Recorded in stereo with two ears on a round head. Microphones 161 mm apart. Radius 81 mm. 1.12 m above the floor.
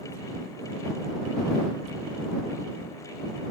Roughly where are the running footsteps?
No running footsteps in this recording.